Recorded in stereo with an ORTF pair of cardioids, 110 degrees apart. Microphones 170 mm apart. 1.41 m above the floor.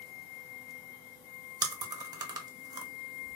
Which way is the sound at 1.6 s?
25° right.